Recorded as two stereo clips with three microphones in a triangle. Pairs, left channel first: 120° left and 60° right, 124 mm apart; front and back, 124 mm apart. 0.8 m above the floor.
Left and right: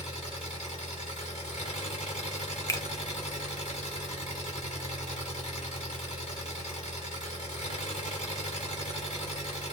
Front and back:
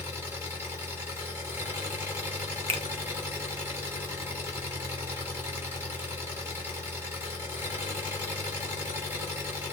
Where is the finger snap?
Straight behind, 0.7 m.